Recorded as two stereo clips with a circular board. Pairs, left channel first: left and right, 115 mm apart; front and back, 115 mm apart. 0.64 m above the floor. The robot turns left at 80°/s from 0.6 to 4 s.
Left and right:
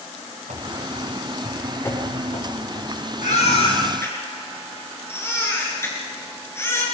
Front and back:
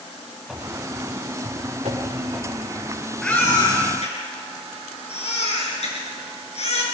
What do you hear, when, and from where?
0.5 s running footsteps: 95° right, 6 m; by 2.9 s 70° left, 7 m
3.2 s a baby crying: 85° left, 6.5 m; by 6.8 s 25° left, 6.5 m